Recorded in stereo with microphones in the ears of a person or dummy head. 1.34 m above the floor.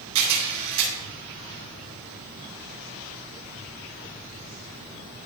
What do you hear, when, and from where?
0.1 s a camera shutter: 85° right, 6 m